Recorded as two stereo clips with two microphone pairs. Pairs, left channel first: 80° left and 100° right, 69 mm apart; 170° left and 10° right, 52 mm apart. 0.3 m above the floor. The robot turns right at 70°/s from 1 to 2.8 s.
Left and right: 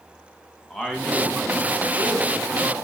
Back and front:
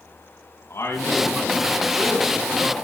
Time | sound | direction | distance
0.7 | a man speaking | 160° left | 3 m